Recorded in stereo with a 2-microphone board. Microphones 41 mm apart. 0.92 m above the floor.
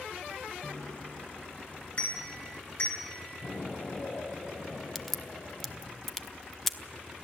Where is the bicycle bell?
35° left (ahead or behind), 8.5 m; by 3.0 s 45° left (ahead or behind), 8.5 m.